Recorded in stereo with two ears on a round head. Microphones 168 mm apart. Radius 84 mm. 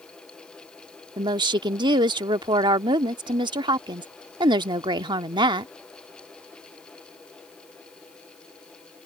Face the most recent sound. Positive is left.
turn(degrees=-25)  # may be behind; listen again after turning